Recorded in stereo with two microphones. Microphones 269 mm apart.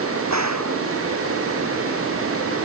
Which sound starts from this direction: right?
A gunshot, at 0.3 s.